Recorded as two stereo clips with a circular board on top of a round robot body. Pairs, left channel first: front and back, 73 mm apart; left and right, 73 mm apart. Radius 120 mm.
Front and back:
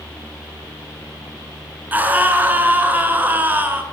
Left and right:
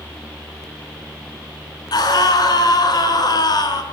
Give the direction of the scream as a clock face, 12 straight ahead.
8 o'clock.